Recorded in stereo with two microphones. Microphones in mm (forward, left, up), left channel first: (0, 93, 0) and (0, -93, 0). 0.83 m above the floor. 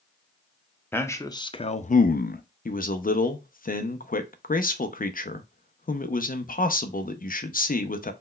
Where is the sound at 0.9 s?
10° left (ahead or behind), 0.8 m; by 2.4 s 55° left (ahead or behind), 0.5 m.